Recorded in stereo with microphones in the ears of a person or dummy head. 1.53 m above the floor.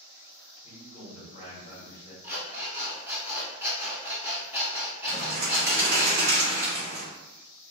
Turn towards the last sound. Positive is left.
turn(degrees=-45)  # may be behind; listen again after turning